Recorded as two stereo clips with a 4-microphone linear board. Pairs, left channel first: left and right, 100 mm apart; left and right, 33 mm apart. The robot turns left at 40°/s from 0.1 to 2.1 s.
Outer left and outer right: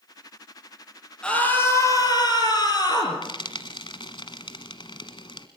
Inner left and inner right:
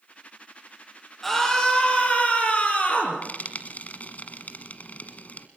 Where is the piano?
I don't hear a piano.